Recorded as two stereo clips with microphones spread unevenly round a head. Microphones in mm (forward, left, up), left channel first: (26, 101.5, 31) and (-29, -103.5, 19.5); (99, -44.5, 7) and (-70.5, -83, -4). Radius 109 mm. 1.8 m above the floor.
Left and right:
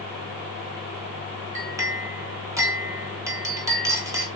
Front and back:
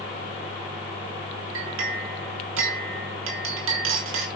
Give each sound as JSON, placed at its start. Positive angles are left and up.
{"t": 1.6, "sound": "a clink", "azimuth_deg": 180, "distance_m": 3.5}